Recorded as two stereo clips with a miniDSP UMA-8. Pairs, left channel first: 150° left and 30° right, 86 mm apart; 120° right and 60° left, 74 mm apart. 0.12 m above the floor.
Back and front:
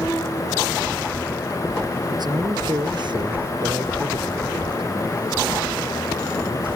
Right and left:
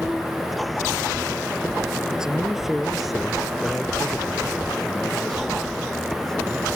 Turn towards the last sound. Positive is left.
turn(degrees=-35)